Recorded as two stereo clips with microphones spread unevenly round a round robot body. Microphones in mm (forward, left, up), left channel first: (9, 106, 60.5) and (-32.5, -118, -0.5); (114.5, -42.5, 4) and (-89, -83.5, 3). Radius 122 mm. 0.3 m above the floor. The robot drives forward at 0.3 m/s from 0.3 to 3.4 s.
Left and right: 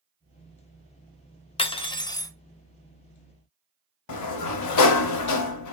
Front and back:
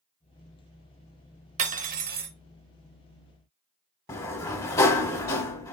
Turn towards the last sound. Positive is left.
turn(degrees=90)